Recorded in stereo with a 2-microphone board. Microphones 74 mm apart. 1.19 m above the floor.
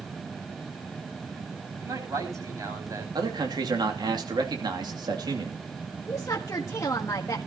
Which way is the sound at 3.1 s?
70° right (ahead or behind).